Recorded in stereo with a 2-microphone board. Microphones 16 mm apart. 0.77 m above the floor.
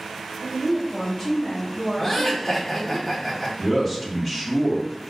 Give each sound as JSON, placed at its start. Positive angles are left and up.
{"t": 0.4, "sound": "a woman speaking", "side_deg": 40, "distance_m": 1.6}
{"t": 2.0, "sound": "laughter", "side_deg": 25, "distance_m": 1.7}
{"t": 3.6, "sound": "a man speaking", "side_deg": 30, "distance_m": 1.2}